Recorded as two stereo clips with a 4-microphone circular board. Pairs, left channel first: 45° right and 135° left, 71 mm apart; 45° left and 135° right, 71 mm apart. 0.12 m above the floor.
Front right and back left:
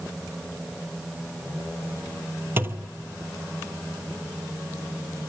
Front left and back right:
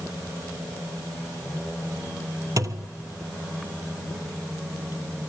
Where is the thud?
165° right, 1.0 m.